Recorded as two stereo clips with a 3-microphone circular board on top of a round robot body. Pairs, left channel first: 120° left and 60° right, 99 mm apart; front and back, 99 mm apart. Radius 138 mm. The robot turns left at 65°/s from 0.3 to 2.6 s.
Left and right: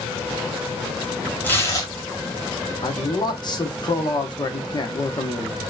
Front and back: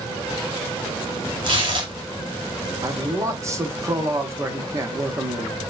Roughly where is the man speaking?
Behind left.